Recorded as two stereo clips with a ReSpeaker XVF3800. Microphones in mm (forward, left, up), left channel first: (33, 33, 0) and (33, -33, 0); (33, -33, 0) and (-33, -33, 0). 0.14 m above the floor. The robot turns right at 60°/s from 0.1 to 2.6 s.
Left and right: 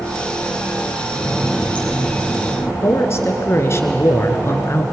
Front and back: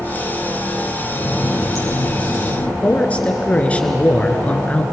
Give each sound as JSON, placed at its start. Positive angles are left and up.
{"t": 1.1, "sound": "a running tap", "azimuth_deg": -20, "distance_m": 3.0}
{"t": 2.8, "sound": "a man speaking", "azimuth_deg": 60, "distance_m": 2.0}